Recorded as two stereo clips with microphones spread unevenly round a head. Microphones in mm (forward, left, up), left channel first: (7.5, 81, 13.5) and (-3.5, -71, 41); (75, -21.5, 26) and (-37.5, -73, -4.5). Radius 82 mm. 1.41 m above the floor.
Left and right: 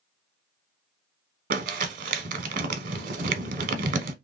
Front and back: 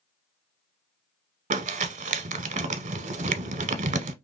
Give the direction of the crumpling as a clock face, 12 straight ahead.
4 o'clock.